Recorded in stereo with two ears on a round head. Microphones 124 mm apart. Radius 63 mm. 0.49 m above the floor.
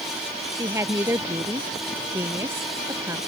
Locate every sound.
0.5 s a woman speaking: 20° right (ahead or behind)